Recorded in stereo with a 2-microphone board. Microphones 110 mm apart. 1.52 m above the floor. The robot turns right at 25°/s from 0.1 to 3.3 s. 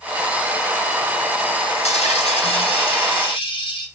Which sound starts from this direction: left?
A dropped coin, at 1.8 s.